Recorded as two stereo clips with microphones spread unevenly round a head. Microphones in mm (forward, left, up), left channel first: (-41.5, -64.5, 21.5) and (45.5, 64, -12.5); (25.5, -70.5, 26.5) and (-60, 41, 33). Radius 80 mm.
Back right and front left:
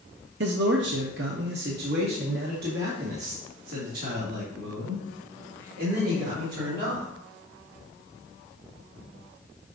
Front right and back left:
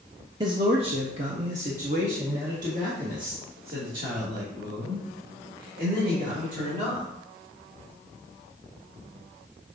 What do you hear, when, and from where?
0.4 s a man speaking: 65° left, 0.7 m; by 7.1 s 90° left, 4 m